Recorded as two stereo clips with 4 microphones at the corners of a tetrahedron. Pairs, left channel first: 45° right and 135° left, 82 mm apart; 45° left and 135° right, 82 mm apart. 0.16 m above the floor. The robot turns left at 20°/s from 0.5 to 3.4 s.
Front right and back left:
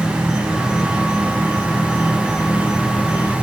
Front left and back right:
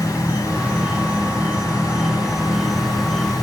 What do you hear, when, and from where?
0.0 s an insect: 170° right, 1.2 m; by 3.4 s 130° left, 1.2 m